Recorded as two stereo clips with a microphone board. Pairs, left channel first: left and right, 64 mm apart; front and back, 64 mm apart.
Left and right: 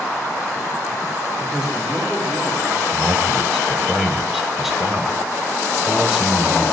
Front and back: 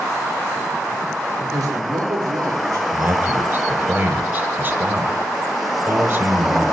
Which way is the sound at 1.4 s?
175° right.